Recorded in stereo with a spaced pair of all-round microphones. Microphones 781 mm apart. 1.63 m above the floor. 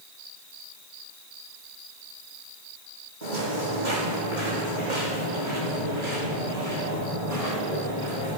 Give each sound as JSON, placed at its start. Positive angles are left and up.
{"t": 3.2, "sound": "footsteps", "side_deg": -65, "distance_m": 4.5}